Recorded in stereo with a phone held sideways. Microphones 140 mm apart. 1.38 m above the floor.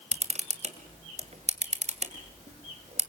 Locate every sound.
0.1 s a camera shutter: 55° right (ahead or behind), 2 m